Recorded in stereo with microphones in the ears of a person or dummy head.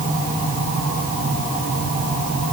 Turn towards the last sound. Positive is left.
No sound to turn to.